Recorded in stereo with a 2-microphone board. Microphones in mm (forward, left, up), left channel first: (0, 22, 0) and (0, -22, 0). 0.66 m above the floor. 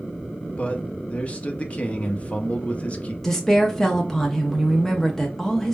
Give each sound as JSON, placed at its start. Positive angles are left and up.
{"t": 0.6, "sound": "a man speaking", "side_deg": 30, "distance_m": 0.7}
{"t": 3.2, "sound": "a woman speaking", "side_deg": 10, "distance_m": 0.6}